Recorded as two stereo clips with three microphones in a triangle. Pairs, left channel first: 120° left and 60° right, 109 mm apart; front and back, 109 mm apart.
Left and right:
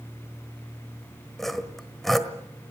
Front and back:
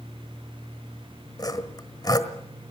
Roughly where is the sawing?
Ahead left.